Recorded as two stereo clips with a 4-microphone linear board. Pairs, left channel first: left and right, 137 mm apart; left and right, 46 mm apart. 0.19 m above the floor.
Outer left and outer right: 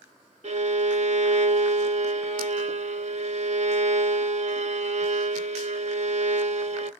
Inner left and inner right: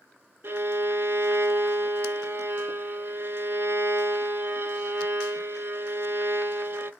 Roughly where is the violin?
Right.